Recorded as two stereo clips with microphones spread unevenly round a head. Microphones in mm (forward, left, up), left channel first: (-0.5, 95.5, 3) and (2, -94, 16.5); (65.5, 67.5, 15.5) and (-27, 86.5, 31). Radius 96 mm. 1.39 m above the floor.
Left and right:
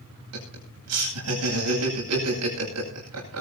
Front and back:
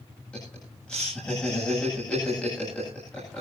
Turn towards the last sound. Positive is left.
turn(degrees=-95)